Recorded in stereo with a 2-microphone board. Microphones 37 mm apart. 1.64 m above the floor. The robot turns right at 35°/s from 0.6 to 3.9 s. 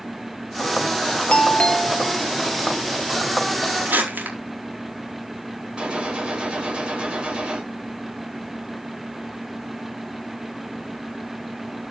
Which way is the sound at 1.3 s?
145° left.